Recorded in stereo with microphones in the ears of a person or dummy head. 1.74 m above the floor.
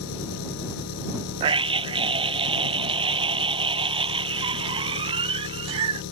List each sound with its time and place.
0.0 s an engine running: 80° left
1.4 s a scream: 30° right (ahead or behind)